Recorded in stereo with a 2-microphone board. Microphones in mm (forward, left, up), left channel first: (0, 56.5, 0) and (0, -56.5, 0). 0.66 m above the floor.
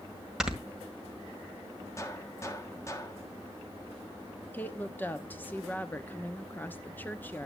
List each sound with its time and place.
0.4 s snoring: 5° right (ahead or behind), 1.8 m
2.0 s a gunshot: 25° left (ahead or behind), 1.5 m
4.5 s a woman speaking: 15° left (ahead or behind), 1.0 m